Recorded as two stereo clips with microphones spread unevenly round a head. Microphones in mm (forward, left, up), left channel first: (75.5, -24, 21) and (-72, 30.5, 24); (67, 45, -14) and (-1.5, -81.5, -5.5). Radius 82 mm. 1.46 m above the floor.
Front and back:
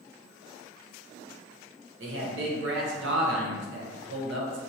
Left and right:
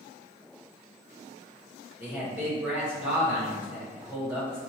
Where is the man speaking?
160° left, 1.0 m.